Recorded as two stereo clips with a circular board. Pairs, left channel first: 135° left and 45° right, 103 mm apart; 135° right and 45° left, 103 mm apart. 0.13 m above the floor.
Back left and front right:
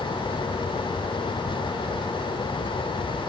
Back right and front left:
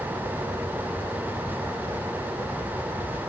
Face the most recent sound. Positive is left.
No sound to turn to.